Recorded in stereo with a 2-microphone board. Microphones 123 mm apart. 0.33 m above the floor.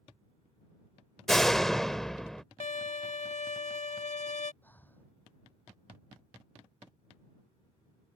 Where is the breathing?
15° left (ahead or behind).